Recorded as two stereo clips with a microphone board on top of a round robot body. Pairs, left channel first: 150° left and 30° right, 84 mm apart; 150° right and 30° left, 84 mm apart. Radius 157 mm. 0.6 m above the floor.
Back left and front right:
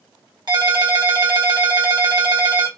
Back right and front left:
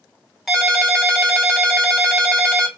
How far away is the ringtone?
About 1.7 m.